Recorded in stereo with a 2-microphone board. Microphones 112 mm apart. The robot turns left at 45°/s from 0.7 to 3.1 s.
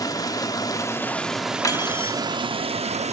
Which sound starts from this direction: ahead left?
Running water, at 0.0 s.